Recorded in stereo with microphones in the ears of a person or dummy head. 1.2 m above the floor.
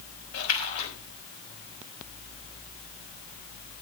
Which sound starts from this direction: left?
A splash, at 0.3 s.